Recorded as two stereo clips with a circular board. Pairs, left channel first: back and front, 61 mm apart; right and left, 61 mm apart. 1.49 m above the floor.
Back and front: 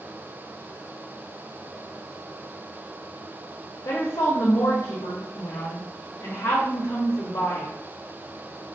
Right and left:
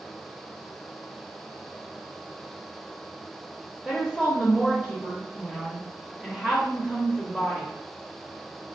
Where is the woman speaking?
165° right, 0.7 m.